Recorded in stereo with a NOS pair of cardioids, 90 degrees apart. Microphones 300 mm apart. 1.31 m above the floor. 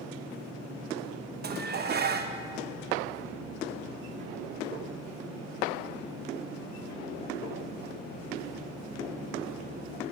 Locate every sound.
1.4 s dishes clattering: 35° right, 0.9 m